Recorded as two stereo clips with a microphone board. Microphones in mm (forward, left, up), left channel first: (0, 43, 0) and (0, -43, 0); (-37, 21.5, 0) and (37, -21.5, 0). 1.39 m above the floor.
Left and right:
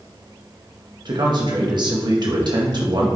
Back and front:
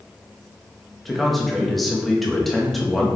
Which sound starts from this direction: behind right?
A man speaking, at 1.1 s.